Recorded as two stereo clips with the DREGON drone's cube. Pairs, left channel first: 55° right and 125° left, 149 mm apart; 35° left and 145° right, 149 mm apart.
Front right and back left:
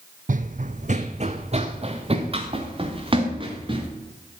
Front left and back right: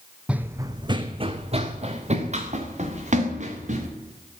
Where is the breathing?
No breathing in this recording.